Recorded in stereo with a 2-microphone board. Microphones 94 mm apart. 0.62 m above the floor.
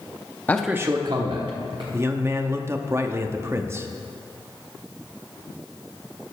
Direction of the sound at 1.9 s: 30° right (ahead or behind).